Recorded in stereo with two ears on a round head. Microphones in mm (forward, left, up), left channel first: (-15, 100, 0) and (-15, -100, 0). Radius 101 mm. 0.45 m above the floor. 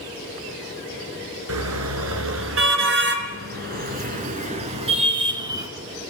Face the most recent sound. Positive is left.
turn(degrees=-15)  # may be behind; listen again after turning